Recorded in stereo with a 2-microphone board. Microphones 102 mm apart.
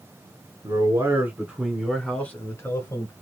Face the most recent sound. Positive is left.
turn(degrees=40)  # may be behind; listen again after turning